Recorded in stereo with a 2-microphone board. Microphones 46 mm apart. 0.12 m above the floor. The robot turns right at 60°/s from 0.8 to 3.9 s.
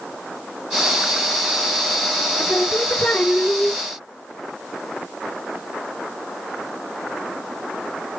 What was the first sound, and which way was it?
Singing, 90° left.